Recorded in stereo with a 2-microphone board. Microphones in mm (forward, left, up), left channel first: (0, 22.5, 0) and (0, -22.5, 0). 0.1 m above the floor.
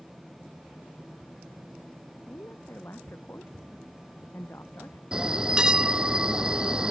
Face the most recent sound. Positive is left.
turn(degrees=-15)  # may be behind; listen again after turning